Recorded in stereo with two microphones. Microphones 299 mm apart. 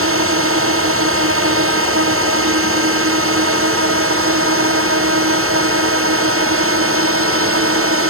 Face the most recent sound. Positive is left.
turn(degrees=-45)  # may be behind; listen again after turning